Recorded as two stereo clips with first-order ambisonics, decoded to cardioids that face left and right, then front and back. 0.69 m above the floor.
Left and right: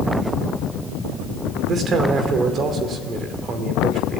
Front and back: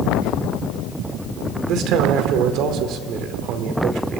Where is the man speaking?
145° right, 2.5 m.